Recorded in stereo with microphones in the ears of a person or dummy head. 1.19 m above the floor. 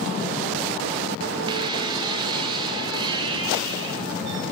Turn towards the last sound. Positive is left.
turn(degrees=-25)  # may be behind; listen again after turning